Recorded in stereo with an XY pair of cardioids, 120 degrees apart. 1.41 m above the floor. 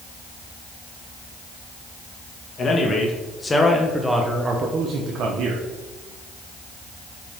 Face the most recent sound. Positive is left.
turn(degrees=-80)